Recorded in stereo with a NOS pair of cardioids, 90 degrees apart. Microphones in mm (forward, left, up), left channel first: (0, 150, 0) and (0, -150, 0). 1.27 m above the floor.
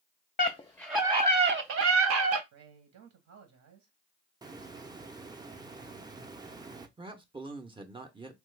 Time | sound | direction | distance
0.4 | a scream | 25° left | 0.6 m
2.5 | a man speaking | 65° right | 0.9 m
4.4 | a hiss | 15° right | 0.6 m
7.0 | a man speaking | 15° right | 0.6 m